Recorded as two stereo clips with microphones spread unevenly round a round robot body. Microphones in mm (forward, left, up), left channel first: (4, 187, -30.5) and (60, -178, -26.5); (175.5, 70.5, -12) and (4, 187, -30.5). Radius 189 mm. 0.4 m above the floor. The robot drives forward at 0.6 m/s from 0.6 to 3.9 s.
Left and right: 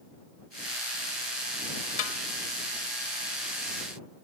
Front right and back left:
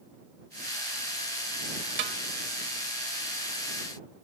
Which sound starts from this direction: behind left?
A snare drum, at 2.0 s.